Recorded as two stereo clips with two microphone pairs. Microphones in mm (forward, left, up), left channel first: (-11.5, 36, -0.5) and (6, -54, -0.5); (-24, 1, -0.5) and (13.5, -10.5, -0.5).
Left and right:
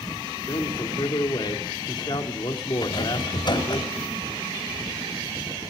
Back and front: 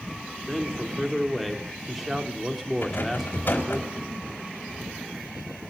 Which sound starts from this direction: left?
A man speaking, at 0.5 s.